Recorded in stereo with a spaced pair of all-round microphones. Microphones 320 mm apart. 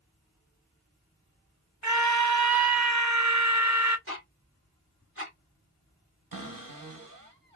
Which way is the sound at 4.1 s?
45° right (ahead or behind).